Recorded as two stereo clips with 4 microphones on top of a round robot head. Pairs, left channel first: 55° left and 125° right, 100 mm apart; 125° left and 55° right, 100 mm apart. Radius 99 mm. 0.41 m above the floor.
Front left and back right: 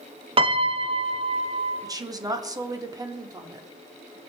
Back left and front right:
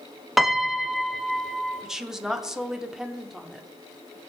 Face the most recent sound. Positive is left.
turn(degrees=-135)